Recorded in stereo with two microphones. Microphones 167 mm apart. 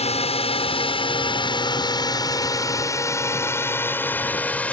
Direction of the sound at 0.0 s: 40° left (ahead or behind).